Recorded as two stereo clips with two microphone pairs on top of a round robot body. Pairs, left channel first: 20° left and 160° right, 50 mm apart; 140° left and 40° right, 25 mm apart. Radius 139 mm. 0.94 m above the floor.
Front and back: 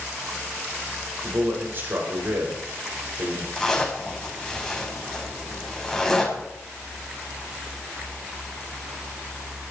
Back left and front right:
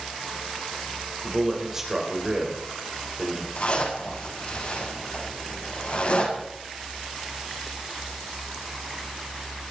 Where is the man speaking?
115° right, 5.5 m.